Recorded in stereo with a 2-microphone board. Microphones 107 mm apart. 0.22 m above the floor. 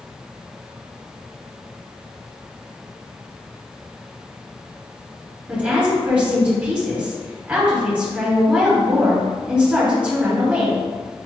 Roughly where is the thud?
I don't hear a thud.